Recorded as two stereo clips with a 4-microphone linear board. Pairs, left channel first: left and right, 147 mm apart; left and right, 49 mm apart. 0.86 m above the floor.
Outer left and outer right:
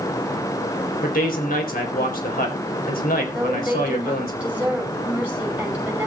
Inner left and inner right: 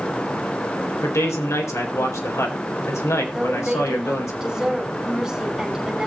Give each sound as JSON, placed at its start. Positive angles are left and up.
{"t": 1.0, "sound": "a man speaking", "side_deg": 75, "distance_m": 4.0}
{"t": 3.3, "sound": "a woman speaking", "side_deg": -10, "distance_m": 5.5}